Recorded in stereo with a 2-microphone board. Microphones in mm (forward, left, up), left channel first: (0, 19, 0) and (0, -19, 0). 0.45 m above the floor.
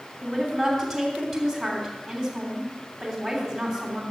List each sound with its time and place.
0.2 s a woman speaking: centre (ahead or behind), 3 m